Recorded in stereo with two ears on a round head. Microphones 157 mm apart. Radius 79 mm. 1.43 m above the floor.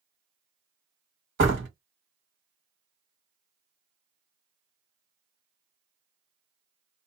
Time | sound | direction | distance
1.4 | a door slam | 70° right (ahead or behind) | 1.4 m